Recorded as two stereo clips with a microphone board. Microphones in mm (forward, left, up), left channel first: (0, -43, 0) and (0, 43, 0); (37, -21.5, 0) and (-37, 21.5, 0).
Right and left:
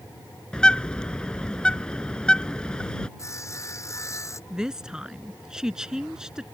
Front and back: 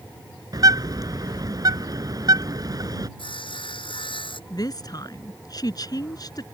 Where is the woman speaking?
5° left.